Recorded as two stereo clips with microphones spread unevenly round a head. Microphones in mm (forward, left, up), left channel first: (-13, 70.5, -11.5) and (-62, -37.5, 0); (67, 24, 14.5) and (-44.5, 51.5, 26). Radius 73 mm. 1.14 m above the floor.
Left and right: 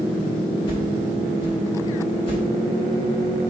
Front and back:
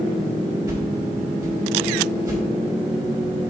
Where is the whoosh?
110° left, 4 m.